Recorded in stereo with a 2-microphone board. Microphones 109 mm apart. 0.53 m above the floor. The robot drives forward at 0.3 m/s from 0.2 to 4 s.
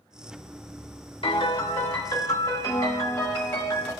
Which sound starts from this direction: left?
A piano, at 1.2 s.